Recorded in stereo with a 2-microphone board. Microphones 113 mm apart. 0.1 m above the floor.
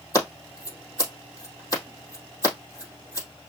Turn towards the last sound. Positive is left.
turn(degrees=30)  # may be behind; listen again after turning